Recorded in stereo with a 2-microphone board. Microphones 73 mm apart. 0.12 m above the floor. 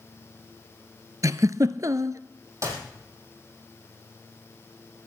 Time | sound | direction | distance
1.2 | a giggle | 50° right (ahead or behind) | 0.5 m
2.6 | a clap | 45° right (ahead or behind) | 4 m